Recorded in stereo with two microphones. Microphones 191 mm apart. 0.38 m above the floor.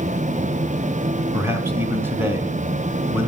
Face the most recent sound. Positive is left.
turn(degrees=-10)  # may be behind; listen again after turning